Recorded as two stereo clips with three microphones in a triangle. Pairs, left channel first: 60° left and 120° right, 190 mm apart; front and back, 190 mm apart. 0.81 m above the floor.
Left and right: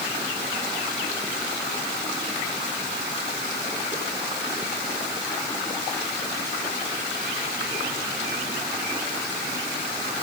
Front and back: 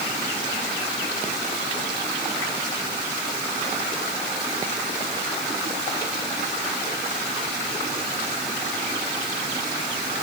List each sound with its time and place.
Only background noise.